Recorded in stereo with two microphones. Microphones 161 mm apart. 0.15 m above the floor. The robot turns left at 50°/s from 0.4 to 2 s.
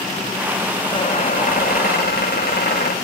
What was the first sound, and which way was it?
A squeak, 150° left.